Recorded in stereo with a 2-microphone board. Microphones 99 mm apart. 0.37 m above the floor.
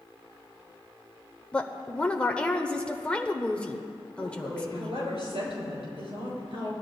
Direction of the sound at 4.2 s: 75° right (ahead or behind).